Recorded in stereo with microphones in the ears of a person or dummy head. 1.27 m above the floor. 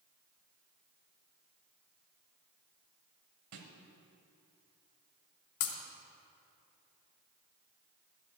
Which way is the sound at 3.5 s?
55° right (ahead or behind).